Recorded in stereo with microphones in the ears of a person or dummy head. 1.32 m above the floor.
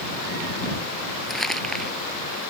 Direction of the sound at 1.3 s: 10° left (ahead or behind).